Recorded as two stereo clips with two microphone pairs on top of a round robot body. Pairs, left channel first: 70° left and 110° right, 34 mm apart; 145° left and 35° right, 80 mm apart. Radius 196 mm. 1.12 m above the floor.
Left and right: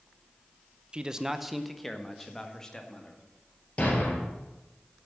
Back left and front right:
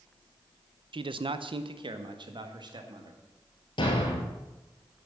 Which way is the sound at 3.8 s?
125° left.